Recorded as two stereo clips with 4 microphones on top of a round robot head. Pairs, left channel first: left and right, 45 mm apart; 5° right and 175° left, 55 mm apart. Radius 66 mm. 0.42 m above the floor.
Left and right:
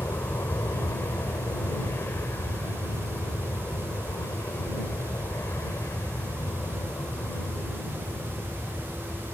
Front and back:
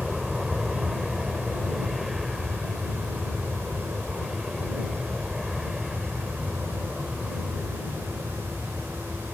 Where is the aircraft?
90° left.